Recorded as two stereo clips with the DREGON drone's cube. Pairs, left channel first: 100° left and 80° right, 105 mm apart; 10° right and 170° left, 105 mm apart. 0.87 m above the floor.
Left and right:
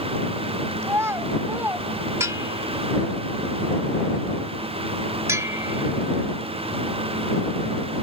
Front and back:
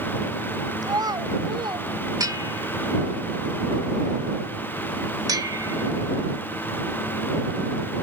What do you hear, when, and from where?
0.8 s a child speaking: 140° right; by 1.9 s 150° right
2.2 s a bell: 140° right